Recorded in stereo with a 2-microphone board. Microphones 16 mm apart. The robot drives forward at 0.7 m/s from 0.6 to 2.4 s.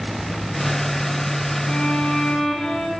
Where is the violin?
55° left (ahead or behind), 9 m; by 2.9 s 50° left (ahead or behind), 9.5 m.